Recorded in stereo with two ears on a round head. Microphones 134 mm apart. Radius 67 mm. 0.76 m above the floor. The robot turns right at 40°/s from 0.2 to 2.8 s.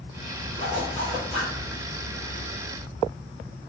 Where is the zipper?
145° left, 1.6 m; by 1.5 s 175° right, 1.6 m.